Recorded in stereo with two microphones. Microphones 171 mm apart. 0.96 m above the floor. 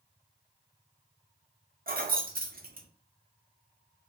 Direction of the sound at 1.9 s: 60° right (ahead or behind).